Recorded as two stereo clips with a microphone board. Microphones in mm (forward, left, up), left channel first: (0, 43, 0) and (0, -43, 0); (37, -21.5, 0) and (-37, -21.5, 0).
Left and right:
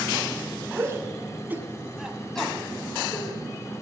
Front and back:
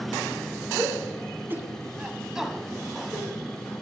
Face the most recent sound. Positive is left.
turn(degrees=55)